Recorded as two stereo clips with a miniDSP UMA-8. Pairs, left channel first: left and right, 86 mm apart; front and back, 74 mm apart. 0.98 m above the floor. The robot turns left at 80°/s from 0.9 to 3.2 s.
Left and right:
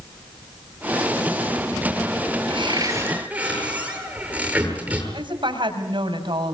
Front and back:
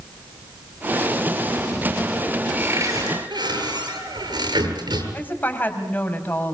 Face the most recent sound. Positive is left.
turn(degrees=-65)